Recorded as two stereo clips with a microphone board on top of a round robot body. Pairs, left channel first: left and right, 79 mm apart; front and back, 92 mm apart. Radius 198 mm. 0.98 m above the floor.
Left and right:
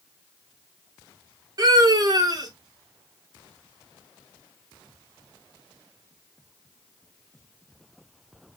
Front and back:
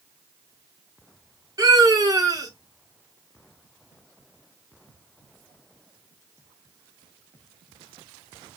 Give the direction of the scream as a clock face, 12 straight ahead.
4 o'clock.